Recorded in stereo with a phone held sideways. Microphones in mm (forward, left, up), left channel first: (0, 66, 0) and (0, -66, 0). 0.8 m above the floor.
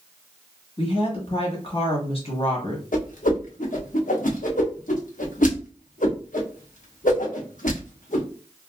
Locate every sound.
0.8 s a woman speaking: 45° left (ahead or behind), 1.1 m
2.9 s a whoosh: 80° left, 0.7 m